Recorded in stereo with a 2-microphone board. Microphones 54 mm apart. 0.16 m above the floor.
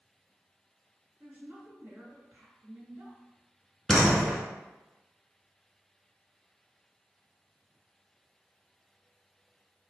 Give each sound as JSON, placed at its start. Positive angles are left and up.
{"t": 1.2, "sound": "a woman speaking", "side_deg": -35, "distance_m": 2.0}
{"t": 3.9, "sound": "a door slam", "side_deg": 5, "distance_m": 1.2}